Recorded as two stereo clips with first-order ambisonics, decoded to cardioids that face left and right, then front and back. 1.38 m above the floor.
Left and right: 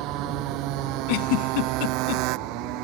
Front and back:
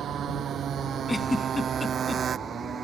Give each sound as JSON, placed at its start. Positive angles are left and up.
{"t": 0.0, "sound": "a motorcycle", "azimuth_deg": -125}
{"t": 1.1, "sound": "a giggle", "azimuth_deg": 85}